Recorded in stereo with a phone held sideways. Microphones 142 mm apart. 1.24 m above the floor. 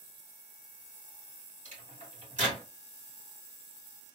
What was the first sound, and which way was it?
A microwave, 70° right (ahead or behind).